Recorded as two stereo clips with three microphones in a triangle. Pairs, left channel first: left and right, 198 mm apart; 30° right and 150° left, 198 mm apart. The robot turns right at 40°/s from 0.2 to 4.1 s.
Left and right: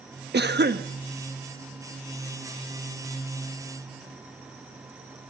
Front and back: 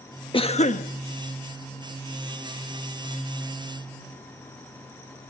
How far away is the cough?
About 1.1 m.